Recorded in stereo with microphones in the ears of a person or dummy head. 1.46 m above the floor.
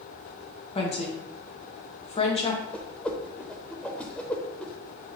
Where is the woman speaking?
30° left (ahead or behind), 1.2 m.